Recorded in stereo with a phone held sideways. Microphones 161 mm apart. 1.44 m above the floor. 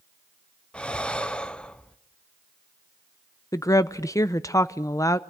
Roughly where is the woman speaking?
Left.